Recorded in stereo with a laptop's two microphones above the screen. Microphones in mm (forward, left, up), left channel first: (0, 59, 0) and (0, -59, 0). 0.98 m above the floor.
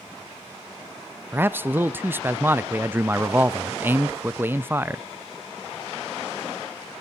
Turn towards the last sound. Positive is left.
turn(degrees=-15)  # may be behind; listen again after turning